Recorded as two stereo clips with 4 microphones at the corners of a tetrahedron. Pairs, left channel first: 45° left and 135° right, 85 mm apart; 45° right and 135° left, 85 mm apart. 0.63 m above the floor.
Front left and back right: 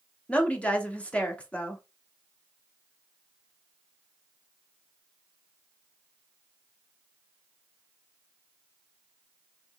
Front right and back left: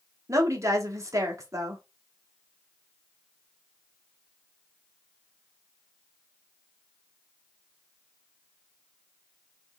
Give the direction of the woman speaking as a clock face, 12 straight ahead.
8 o'clock.